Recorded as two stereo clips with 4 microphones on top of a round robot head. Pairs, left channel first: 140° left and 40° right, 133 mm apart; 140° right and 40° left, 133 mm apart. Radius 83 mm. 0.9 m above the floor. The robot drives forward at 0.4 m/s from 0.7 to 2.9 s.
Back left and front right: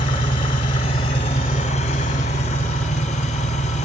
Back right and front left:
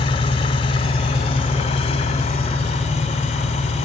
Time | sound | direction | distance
0.0 | an engine running | straight behind | 0.8 m